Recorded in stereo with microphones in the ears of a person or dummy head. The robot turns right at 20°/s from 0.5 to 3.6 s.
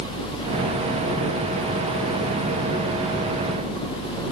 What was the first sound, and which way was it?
Only background noise.